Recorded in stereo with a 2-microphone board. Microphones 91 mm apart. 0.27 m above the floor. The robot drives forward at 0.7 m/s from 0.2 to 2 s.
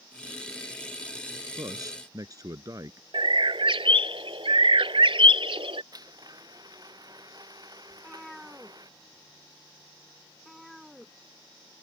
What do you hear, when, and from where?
1.6 s a man speaking: 45° right (ahead or behind); by 3.0 s 40° right (ahead or behind)
3.1 s a bird: 75° right (ahead or behind)
5.9 s a blender: 45° right (ahead or behind)
7.9 s a cat meowing: centre (ahead or behind)